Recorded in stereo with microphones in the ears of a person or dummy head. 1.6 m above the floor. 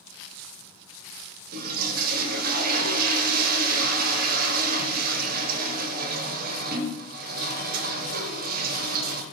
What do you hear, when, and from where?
1.5 s a toilet flushing: 50° right (ahead or behind), 0.8 m